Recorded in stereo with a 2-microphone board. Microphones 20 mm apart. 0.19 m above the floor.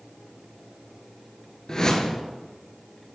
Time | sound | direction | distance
1.7 | a whoosh | 35° left (ahead or behind) | 1.2 m